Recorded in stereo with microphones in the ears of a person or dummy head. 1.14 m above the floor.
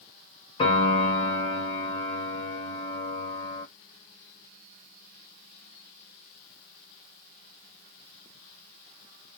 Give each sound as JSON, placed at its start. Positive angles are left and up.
{"t": 0.6, "sound": "a piano", "side_deg": 35, "distance_m": 2.5}